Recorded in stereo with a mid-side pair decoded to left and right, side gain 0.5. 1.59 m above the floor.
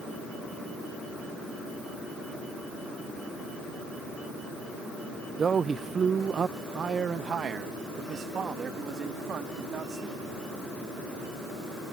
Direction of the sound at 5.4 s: 35° right.